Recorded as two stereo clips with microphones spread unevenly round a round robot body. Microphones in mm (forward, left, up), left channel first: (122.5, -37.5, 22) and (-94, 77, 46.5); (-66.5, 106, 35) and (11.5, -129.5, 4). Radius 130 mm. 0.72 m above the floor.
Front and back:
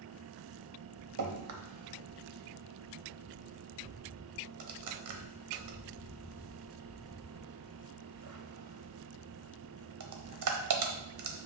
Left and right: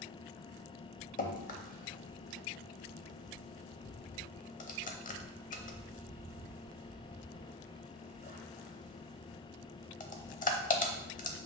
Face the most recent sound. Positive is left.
turn(degrees=165)